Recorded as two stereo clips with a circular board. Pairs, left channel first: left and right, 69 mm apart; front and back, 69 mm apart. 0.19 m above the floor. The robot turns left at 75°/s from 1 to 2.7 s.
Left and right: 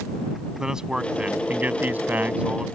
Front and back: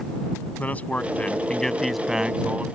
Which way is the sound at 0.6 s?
20° right.